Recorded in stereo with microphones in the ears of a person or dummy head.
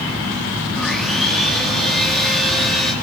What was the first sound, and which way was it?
Sawing, 5° right (ahead or behind).